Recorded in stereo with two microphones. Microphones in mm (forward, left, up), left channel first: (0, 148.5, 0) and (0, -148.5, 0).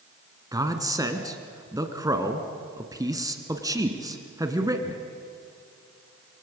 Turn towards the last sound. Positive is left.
turn(degrees=-10)  # may be behind; listen again after turning